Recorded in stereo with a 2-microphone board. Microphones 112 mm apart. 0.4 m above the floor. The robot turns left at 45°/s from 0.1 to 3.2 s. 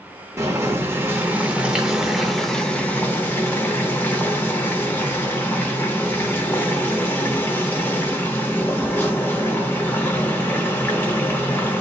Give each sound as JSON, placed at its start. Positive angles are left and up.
{"t": 0.4, "sound": "boiling", "side_deg": -25, "distance_m": 0.9}